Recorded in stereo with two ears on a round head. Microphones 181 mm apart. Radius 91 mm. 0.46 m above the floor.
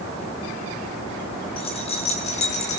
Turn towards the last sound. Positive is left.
turn(degrees=40)  # may be behind; listen again after turning